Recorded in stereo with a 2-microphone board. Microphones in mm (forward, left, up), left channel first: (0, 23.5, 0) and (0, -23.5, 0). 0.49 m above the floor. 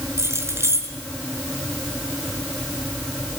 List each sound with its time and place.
0.2 s keys jangling: 80° right, 5 m